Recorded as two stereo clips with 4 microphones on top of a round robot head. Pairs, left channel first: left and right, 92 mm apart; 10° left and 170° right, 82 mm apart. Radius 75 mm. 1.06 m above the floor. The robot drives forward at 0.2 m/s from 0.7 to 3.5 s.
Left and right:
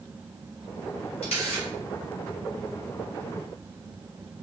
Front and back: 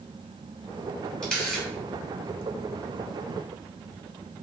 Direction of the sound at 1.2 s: 85° left.